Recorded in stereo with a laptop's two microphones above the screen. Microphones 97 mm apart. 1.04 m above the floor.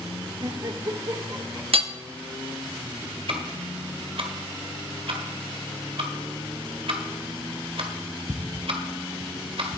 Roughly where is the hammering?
Right.